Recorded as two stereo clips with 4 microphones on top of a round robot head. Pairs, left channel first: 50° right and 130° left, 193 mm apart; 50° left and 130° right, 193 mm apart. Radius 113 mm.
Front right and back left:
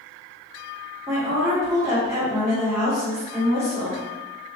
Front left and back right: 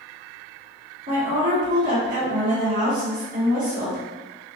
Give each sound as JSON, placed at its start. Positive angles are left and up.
{"t": 1.1, "sound": "a woman speaking", "azimuth_deg": -160, "distance_m": 1.6}